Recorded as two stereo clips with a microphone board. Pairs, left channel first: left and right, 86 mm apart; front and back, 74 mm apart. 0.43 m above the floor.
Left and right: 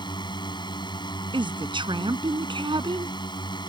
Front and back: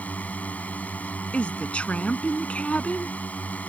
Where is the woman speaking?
75° right.